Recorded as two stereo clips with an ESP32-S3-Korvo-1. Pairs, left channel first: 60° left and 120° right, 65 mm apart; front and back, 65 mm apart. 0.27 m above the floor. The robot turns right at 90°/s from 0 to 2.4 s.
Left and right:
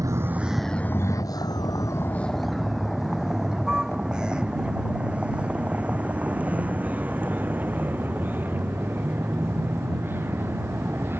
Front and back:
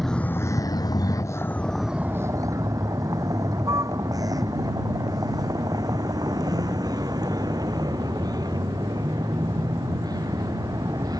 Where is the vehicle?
90° right; by 11.2 s 175° right.